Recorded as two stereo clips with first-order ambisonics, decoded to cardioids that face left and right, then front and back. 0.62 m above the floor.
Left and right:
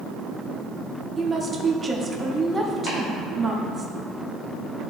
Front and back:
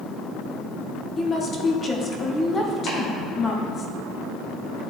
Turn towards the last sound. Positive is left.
turn(degrees=50)